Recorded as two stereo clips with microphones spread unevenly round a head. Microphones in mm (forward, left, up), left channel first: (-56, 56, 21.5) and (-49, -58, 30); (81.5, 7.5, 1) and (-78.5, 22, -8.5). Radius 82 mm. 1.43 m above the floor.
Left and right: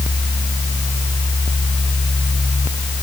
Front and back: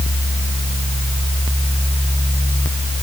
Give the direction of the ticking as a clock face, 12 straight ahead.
I don't hear ticking.